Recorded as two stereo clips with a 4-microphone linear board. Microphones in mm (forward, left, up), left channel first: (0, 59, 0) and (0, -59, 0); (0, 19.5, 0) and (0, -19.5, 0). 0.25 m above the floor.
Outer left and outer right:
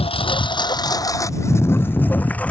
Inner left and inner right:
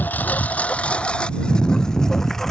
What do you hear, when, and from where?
0.0 s a lawn mower: 55° left (ahead or behind); by 2.5 s 10° left (ahead or behind)